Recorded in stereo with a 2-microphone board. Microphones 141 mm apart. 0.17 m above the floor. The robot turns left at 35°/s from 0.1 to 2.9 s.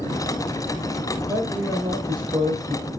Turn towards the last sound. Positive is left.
turn(degrees=-70)